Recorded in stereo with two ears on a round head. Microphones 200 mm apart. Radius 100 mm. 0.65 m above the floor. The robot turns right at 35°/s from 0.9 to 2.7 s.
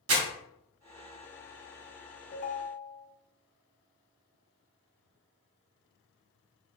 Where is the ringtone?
35° left (ahead or behind), 0.5 m; by 3.1 s 45° left (ahead or behind), 0.5 m.